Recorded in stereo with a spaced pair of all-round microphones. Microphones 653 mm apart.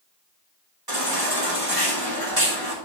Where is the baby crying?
35° right (ahead or behind), 3 m.